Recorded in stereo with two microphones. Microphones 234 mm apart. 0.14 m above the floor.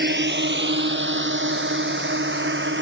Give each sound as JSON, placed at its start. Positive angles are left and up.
{"t": 0.0, "sound": "a drone", "side_deg": -50}